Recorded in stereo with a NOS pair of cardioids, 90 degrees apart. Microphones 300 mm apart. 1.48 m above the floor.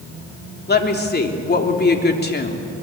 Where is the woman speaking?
35° left, 3.5 m.